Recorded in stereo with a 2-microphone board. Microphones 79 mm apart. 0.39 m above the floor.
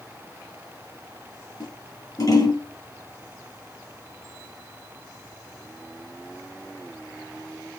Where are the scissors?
50° left (ahead or behind), 6.5 m.